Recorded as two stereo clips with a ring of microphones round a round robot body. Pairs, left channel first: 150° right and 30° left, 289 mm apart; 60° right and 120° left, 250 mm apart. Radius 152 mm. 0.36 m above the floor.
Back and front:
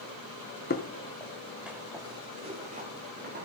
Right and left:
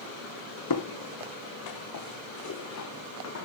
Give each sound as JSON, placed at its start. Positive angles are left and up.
{"t": 0.7, "sound": "footsteps", "azimuth_deg": -90, "distance_m": 1.5}